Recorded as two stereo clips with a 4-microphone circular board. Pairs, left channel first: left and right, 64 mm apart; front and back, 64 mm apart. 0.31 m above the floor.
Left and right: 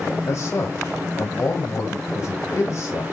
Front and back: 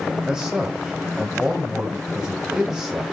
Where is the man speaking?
100° left, 1.4 m.